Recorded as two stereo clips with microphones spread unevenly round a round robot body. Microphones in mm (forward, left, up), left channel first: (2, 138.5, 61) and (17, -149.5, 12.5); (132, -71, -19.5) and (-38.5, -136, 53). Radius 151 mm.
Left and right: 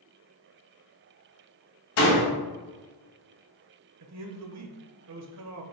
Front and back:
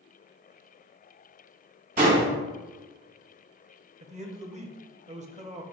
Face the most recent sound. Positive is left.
turn(degrees=-100)